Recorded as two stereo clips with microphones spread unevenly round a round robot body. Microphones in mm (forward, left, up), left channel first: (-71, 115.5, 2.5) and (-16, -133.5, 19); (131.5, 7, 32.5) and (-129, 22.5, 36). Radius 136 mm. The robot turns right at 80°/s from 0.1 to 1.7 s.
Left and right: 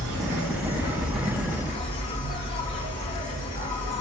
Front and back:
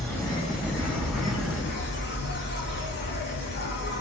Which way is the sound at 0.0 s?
90° right.